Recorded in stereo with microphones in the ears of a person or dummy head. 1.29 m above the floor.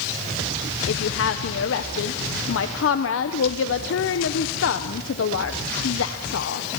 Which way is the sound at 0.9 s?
60° left (ahead or behind).